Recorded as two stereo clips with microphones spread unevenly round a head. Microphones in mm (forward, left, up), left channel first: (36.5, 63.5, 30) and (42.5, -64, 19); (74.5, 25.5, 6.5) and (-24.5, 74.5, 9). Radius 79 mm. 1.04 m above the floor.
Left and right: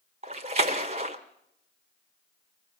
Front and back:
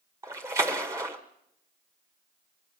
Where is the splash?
140° right, 1.0 m.